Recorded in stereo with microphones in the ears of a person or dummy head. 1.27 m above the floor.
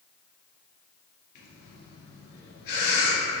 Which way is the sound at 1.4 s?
50° left (ahead or behind).